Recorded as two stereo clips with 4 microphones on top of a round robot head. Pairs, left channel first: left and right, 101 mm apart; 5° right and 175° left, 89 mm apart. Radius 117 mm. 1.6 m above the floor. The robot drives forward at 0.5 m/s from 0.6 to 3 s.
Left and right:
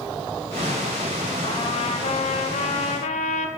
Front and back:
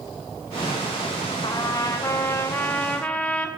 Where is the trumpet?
45° left, 1.6 m; by 3.5 s 70° left, 1.2 m.